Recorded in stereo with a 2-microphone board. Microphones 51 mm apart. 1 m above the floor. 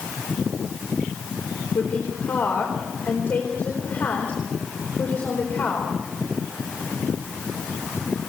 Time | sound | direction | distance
1.8 | a woman speaking | 35° left (ahead or behind) | 4 m